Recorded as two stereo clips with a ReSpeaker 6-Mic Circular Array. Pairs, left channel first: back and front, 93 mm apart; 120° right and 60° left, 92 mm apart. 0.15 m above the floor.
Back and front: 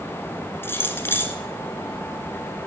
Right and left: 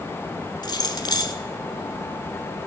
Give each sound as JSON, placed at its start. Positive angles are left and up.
{"t": 0.6, "sound": "keys jangling", "azimuth_deg": -125, "distance_m": 1.1}